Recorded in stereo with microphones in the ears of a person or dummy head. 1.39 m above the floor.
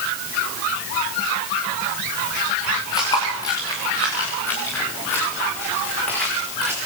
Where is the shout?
I don't hear a shout.